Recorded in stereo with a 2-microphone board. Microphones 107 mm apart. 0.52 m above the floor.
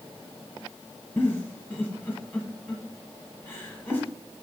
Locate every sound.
1.2 s a giggle: 20° left (ahead or behind), 0.9 m